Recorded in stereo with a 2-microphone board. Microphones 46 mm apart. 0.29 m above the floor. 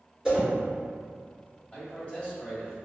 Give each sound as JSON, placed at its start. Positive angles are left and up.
{"t": 0.2, "sound": "a whoosh", "side_deg": -15, "distance_m": 1.8}
{"t": 1.7, "sound": "a man speaking", "side_deg": 25, "distance_m": 1.6}